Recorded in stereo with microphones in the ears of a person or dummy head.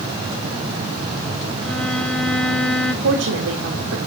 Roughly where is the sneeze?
I don't hear a sneeze.